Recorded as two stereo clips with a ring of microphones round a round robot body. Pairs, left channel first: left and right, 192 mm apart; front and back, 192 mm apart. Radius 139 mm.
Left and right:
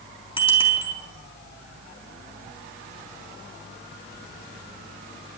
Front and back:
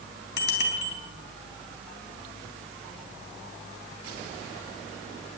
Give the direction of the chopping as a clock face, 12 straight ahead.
I don't hear chopping.